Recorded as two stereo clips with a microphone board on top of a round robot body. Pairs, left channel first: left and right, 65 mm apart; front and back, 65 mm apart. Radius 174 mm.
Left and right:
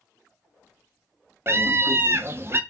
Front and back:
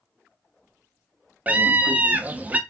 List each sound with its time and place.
1.5 s a scream: 120° right, 1.0 m